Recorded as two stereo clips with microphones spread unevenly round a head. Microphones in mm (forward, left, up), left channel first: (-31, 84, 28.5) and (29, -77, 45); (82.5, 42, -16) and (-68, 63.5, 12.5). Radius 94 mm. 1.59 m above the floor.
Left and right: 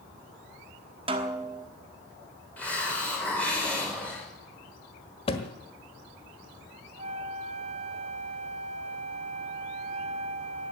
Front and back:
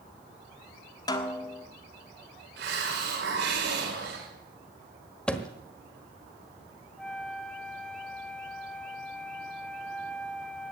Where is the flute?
105° right, 0.7 m.